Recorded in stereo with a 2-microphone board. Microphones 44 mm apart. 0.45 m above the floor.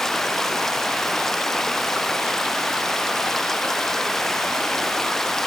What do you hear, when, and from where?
0.0 s running water: 5° left (ahead or behind)